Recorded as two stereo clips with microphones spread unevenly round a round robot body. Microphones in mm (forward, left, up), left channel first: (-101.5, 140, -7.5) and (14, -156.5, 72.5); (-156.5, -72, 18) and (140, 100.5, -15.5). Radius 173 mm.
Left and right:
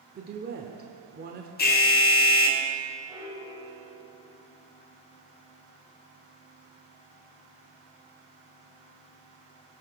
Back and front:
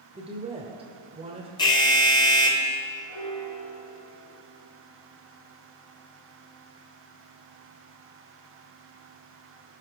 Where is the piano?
155° right, 2.5 m.